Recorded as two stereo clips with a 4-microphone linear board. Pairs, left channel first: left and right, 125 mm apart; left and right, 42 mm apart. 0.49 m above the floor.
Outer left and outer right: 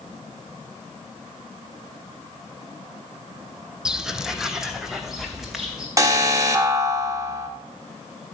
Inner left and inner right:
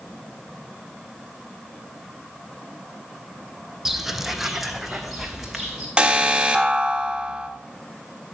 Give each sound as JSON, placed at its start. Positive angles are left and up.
{"t": 3.9, "sound": "footsteps", "side_deg": -5, "distance_m": 0.7}
{"t": 6.0, "sound": "an alarm", "side_deg": -25, "distance_m": 1.4}